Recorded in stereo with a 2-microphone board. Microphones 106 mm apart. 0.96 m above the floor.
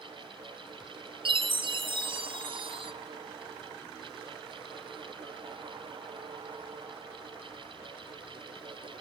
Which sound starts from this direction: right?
A chime, at 1.2 s.